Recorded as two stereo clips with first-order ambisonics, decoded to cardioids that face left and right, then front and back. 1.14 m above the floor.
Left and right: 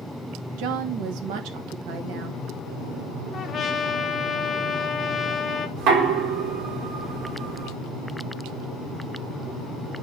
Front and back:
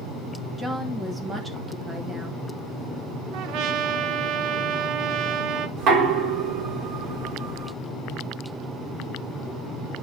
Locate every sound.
0.6 s a woman speaking: 100° right, 1.5 m
3.3 s a trumpet: 155° left, 1.0 m
5.8 s knocking: 130° right, 3 m